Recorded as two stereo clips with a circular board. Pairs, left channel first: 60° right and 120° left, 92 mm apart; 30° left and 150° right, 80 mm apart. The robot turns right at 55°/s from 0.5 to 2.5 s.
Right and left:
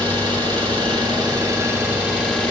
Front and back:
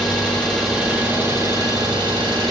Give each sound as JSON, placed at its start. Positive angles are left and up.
{"t": 0.0, "sound": "an engine running", "azimuth_deg": 110, "distance_m": 2.5}